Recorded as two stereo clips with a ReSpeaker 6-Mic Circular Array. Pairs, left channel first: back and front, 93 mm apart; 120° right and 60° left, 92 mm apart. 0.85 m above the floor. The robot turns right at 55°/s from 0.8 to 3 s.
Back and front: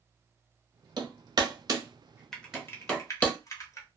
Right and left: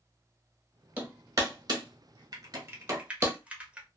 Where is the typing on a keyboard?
95° left, 0.8 m; by 3.9 s 135° left, 0.8 m.